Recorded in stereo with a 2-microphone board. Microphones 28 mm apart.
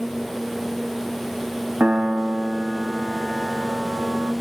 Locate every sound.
1.8 s a piano: 65° right (ahead or behind), 0.8 m